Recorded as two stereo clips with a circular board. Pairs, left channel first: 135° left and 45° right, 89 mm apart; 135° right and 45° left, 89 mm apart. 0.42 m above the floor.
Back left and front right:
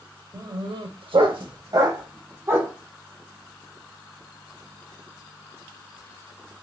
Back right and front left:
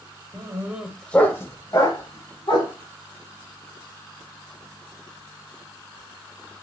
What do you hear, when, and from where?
0.3 s a dog barking: 5° right, 0.7 m; by 2.7 s 110° right, 1.4 m